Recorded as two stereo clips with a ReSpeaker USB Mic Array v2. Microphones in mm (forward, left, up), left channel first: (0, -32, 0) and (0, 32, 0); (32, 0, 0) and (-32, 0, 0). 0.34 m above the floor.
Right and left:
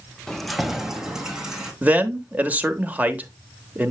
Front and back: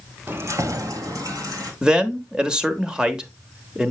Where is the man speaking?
120° left, 0.9 m.